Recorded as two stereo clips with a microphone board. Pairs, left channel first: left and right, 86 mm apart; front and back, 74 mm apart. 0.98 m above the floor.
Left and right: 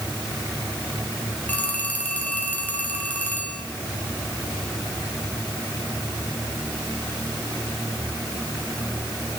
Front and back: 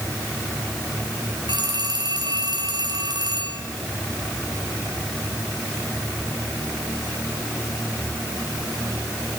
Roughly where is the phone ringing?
Behind.